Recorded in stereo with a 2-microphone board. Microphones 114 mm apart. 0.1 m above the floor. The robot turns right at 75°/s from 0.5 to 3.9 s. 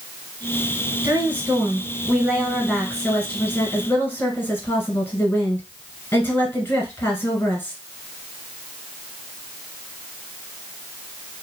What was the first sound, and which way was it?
A woman speaking, 15° right (ahead or behind).